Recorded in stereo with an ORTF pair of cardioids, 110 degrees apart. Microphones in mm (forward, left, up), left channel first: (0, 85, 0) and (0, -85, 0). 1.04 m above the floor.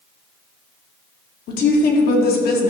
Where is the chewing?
I don't hear chewing.